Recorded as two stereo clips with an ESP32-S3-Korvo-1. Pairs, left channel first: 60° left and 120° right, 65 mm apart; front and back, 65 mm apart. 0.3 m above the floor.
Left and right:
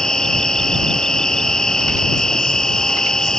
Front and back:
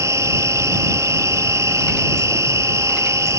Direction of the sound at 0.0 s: 140° left.